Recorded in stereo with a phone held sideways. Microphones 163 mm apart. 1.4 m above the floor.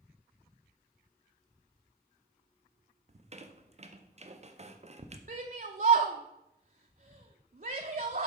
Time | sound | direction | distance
3.1 | a squeak | 40° right (ahead or behind) | 0.6 m
5.3 | a shout | 55° right (ahead or behind) | 0.5 m